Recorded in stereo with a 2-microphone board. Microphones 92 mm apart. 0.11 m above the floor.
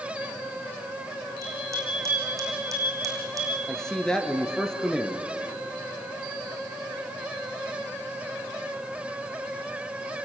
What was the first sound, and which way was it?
A bicycle bell, 35° right (ahead or behind).